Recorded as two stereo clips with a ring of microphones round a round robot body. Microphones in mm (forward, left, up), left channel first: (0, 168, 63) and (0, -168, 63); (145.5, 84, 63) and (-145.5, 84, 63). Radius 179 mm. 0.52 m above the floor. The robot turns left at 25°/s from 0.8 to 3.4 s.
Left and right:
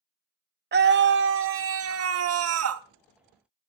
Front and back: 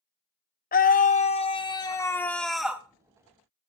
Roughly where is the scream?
Ahead right.